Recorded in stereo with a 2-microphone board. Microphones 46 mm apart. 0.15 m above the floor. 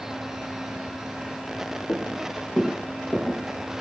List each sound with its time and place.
1.9 s footsteps: 75° left (ahead or behind), 1.2 m; by 3.7 s 15° left (ahead or behind), 1.4 m